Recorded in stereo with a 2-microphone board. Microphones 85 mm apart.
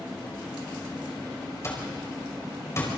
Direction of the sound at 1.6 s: 35° left (ahead or behind).